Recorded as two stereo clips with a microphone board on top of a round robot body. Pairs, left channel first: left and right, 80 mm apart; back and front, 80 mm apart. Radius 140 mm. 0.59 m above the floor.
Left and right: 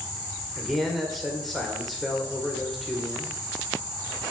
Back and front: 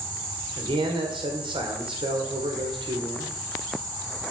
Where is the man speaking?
Straight ahead, 2 m.